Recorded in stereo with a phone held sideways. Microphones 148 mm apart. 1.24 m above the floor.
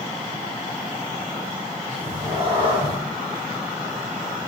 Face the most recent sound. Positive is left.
turn(degrees=-40)  # may be behind; listen again after turning